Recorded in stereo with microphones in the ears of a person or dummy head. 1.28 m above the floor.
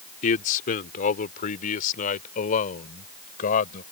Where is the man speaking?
50° left (ahead or behind).